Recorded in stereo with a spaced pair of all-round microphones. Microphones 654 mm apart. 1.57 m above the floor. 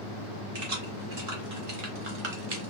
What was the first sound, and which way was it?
Keys jangling, 65° right (ahead or behind).